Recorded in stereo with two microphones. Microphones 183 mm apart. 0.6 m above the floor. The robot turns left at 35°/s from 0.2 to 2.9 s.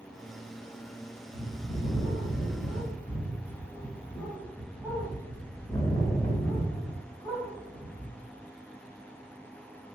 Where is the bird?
135° right, 1.2 m; by 8.1 s 170° left, 1.2 m.